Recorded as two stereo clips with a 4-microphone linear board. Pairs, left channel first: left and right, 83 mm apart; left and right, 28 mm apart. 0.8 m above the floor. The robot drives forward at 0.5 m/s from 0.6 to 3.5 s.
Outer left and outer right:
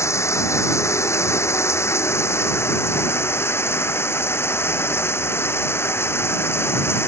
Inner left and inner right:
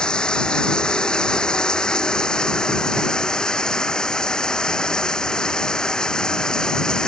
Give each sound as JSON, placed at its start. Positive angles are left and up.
{"t": 0.0, "sound": "running water", "side_deg": 35}